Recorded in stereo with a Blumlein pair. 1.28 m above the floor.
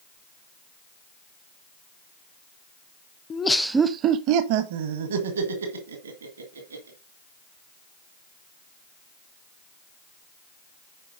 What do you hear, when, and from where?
3.3 s laughter: 20° left, 0.6 m; by 7.0 s 75° right, 2.5 m